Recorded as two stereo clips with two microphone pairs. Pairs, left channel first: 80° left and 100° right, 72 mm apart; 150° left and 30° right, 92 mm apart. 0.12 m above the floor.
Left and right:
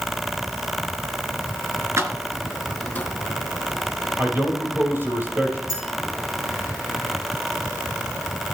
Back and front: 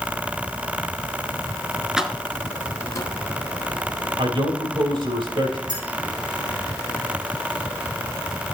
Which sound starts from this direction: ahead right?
A man speaking, at 4.2 s.